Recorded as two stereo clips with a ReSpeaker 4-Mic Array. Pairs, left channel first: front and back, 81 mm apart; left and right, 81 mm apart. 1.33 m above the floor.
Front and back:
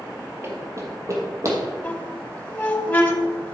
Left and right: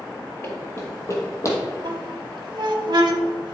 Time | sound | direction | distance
0.4 | running footsteps | 135° left | 2.0 m
1.8 | a squeak | 65° right | 1.1 m